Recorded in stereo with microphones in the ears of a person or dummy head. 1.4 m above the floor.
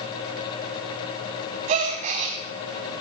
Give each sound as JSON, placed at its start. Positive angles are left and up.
{"t": 1.7, "sound": "a gasp", "side_deg": -35, "distance_m": 1.6}